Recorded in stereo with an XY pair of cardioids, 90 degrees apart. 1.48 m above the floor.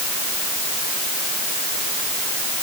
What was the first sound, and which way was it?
Only background noise.